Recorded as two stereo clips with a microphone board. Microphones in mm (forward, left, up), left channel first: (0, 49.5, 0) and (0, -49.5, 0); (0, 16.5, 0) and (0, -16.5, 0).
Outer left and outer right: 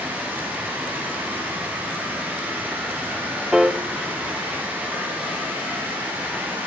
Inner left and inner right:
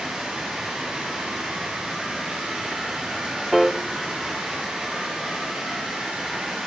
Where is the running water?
15° right (ahead or behind), 6.5 m.